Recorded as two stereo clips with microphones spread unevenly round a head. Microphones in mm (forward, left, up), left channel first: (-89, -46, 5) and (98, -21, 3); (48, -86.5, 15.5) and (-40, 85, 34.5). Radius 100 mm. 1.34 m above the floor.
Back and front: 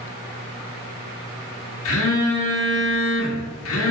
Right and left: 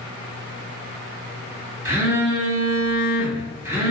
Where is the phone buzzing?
165° right, 1.7 m.